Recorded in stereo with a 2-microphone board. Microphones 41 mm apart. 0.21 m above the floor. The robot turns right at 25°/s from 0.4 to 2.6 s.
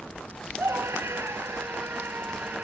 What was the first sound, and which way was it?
A scream, 95° right.